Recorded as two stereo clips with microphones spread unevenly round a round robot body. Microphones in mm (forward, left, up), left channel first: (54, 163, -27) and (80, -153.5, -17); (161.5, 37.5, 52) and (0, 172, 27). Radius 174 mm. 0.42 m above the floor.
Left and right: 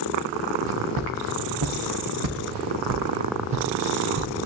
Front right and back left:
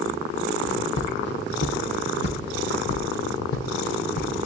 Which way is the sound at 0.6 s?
80° right.